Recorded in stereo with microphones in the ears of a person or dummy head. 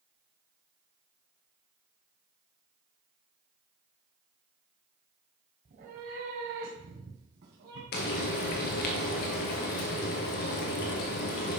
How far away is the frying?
About 1.2 m.